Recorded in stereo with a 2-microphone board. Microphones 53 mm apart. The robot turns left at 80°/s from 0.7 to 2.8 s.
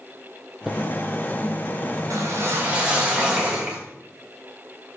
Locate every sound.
0.7 s footsteps: 10° right (ahead or behind), 1.8 m; by 0.8 s 15° right (ahead or behind), 1.8 m
2.1 s a whoosh: 105° right, 4 m; by 3.8 s 160° right, 4 m